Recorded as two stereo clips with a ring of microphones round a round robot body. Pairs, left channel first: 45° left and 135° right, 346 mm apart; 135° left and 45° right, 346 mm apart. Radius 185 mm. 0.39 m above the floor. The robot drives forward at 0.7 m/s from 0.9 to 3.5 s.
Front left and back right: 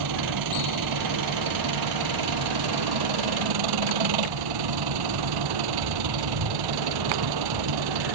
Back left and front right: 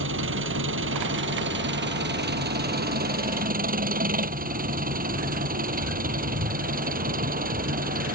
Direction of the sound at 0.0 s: 100° right.